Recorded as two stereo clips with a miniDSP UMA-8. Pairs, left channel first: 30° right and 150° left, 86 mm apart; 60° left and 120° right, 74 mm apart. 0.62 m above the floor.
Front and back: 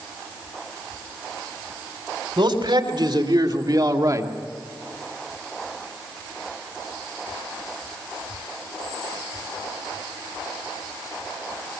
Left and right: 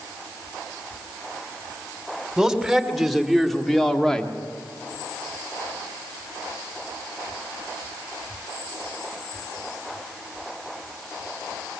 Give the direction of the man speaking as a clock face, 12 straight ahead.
7 o'clock.